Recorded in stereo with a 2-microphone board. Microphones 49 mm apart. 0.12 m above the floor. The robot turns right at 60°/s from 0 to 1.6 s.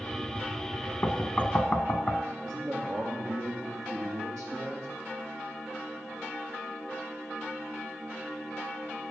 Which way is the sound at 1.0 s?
35° left (ahead or behind).